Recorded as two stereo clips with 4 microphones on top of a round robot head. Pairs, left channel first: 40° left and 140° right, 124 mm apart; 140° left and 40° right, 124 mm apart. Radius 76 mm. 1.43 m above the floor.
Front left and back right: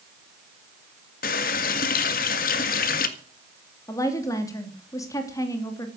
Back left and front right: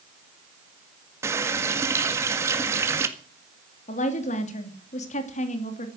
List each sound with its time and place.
1.2 s a running tap: 30° left, 1.8 m
3.9 s a woman speaking: 110° left, 3 m